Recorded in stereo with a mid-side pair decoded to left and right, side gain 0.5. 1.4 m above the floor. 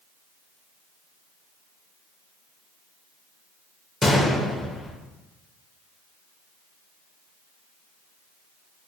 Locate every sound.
4.0 s a gunshot: 25° left, 0.5 m